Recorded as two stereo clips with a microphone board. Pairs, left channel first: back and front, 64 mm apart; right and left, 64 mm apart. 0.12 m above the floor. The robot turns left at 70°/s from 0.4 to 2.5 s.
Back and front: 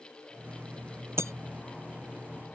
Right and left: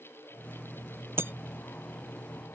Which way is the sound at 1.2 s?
40° left.